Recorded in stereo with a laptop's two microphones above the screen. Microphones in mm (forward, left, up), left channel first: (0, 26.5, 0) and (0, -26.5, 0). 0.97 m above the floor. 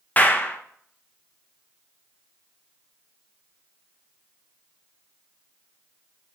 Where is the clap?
30° left (ahead or behind), 0.7 m.